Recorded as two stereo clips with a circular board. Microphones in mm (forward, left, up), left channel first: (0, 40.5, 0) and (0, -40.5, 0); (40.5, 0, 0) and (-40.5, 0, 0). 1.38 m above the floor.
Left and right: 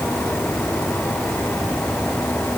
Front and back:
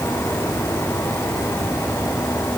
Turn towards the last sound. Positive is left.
No sound to turn to.